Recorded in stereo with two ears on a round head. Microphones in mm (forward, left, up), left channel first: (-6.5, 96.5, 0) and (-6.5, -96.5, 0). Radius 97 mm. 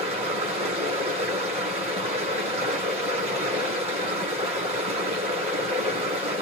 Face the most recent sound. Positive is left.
turn(degrees=-30)  # may be behind; listen again after turning